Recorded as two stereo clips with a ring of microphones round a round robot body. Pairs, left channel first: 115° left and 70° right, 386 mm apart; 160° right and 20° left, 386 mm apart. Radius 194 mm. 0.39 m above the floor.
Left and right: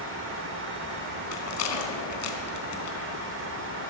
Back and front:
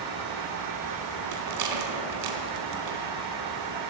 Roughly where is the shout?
I don't hear a shout.